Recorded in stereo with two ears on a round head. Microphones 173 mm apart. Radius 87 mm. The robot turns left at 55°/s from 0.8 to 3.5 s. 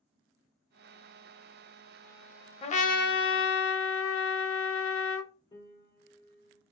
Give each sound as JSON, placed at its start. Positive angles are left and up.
{"t": 2.6, "sound": "a trumpet", "azimuth_deg": 150, "distance_m": 0.6}
{"t": 5.5, "sound": "a piano", "side_deg": 20, "distance_m": 1.3}